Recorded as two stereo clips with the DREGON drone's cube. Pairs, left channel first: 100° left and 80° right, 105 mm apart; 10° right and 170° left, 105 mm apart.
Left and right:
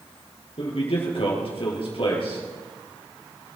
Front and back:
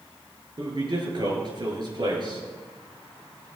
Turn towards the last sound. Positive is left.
turn(degrees=125)